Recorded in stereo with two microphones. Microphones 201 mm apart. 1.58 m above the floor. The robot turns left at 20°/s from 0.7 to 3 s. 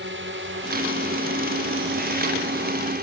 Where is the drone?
75° right (ahead or behind); by 3.0 s 50° right (ahead or behind).